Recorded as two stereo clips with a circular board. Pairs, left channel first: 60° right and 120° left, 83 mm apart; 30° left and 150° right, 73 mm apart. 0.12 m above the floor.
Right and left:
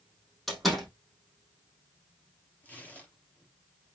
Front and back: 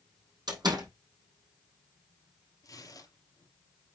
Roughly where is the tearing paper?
Ahead.